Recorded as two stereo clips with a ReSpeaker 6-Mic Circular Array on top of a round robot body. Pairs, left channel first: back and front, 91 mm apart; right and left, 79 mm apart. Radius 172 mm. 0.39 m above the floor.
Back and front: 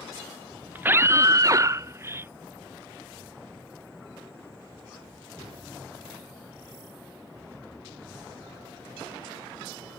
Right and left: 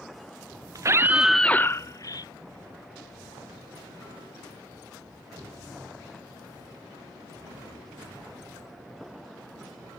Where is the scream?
65° left; by 2.3 s 65° right.